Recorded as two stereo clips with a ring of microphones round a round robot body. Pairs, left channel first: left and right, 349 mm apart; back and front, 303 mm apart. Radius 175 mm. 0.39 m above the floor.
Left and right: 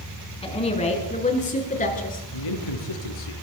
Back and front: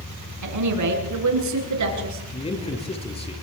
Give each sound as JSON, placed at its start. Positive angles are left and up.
{"t": 0.4, "sound": "a woman speaking", "azimuth_deg": 15, "distance_m": 5.5}
{"t": 2.3, "sound": "a man speaking", "azimuth_deg": 110, "distance_m": 6.0}